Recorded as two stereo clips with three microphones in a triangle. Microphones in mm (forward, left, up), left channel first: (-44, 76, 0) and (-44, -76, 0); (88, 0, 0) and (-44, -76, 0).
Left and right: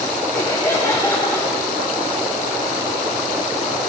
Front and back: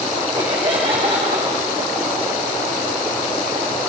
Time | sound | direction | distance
0.3 | laughter | 165° left | 2.5 m